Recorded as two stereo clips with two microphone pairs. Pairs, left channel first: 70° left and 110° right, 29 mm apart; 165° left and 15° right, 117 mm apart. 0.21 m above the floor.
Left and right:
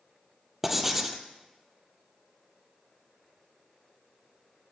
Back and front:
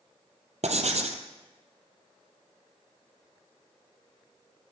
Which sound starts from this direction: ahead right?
Writing, at 0.6 s.